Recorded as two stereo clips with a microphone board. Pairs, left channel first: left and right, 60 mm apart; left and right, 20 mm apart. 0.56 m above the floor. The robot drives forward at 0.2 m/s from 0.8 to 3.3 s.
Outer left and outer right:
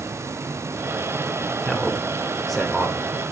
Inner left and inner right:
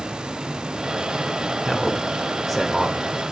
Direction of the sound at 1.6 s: Centre (ahead or behind).